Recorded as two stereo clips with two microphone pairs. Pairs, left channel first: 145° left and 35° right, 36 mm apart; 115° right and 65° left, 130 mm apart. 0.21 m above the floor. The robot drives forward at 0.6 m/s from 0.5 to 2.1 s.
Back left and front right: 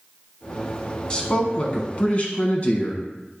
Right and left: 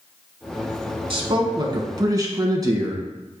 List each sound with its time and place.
1.1 s a man speaking: 90° left, 1.6 m; by 3.4 s 115° left, 1.7 m